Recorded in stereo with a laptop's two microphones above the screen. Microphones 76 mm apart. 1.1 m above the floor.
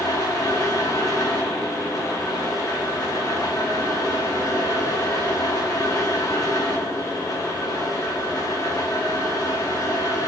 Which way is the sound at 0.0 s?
45° left (ahead or behind).